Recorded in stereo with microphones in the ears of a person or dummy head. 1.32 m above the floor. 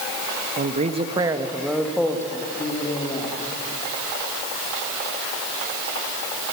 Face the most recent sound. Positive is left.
turn(degrees=15)  # may be behind; listen again after turning